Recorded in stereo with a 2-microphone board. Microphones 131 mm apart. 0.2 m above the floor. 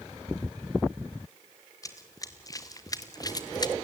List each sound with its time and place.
1.8 s running footsteps: 25° left (ahead or behind), 2 m; by 3.7 s 30° left (ahead or behind), 0.7 m